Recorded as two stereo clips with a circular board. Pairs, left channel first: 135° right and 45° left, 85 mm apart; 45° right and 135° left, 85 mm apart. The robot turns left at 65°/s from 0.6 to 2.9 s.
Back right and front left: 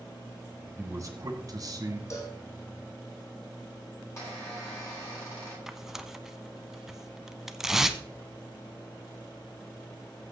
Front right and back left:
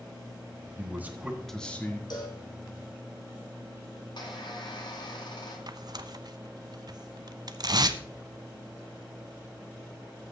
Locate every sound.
0.8 s a man speaking: 90° left, 1.8 m; by 2.0 s 10° left, 1.8 m
2.1 s a cowbell: 80° right, 2.5 m; by 2.4 s 100° right, 2.5 m
4.0 s a squeak: 75° right, 7.5 m
5.7 s tearing paper: 130° left, 0.7 m